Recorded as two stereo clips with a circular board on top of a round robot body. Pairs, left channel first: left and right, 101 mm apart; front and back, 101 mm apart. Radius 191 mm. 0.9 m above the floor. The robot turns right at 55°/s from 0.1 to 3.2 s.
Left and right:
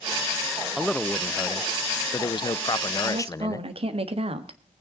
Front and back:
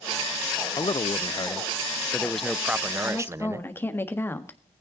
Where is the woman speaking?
80° right, 1.7 m; by 4.6 s 70° right, 1.7 m.